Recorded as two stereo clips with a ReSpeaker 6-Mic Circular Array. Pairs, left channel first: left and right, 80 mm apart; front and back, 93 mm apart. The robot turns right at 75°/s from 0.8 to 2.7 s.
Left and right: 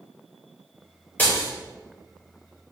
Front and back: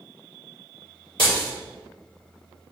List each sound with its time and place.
1.2 s breaking glass: 20° left, 3 m; by 1.5 s 45° left, 3 m